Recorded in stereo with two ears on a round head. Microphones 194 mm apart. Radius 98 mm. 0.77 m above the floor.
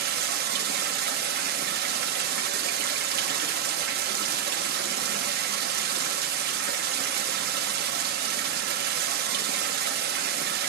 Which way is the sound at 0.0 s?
45° right (ahead or behind).